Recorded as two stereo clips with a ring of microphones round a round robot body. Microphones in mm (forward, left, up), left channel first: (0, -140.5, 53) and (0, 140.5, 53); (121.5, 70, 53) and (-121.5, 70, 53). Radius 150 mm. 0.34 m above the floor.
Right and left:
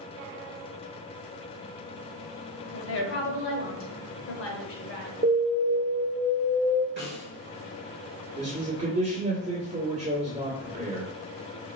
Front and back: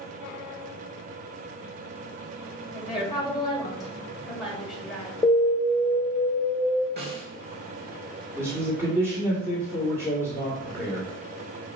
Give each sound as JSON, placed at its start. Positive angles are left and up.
{"t": 2.7, "sound": "a woman speaking", "azimuth_deg": -90, "distance_m": 1.4}
{"t": 5.2, "sound": "an alarm", "azimuth_deg": 60, "distance_m": 0.9}
{"t": 7.0, "sound": "a snare drum", "azimuth_deg": 135, "distance_m": 2.0}
{"t": 8.4, "sound": "a man speaking", "azimuth_deg": 115, "distance_m": 1.6}